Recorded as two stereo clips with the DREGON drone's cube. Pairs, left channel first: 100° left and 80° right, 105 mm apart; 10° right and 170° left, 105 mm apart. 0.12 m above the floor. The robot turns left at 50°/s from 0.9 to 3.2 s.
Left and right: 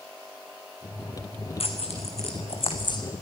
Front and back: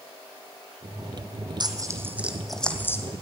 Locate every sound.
1.6 s tearing paper: 125° left, 1.8 m; by 3.0 s 55° left, 1.8 m